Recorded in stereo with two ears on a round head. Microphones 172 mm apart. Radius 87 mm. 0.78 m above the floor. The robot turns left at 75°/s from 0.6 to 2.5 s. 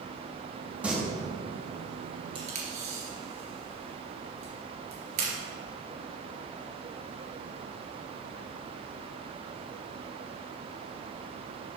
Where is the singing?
5° right (ahead or behind), 1.6 m; by 0.9 s centre (ahead or behind), 1.6 m.